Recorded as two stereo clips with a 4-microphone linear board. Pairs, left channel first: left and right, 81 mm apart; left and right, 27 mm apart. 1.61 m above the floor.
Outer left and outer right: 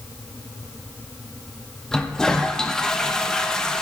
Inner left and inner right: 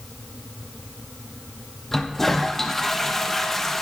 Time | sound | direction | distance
1.9 | a toilet flushing | 10° left (ahead or behind) | 0.9 m